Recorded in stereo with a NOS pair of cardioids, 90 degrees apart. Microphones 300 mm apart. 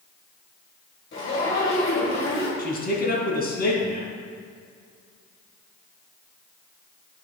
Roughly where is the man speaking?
Ahead left.